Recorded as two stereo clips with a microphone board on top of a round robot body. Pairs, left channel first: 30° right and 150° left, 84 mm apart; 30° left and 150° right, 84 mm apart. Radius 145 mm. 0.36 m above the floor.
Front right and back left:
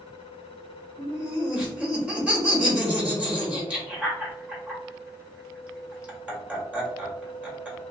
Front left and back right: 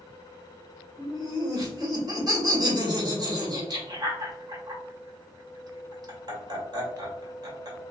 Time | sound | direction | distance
1.0 | laughter | 140° right | 1.9 m